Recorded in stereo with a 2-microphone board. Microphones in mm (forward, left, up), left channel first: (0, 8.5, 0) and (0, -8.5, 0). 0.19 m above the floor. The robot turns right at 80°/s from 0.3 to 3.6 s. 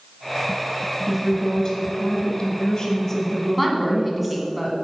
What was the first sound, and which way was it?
A woman speaking, 5° right.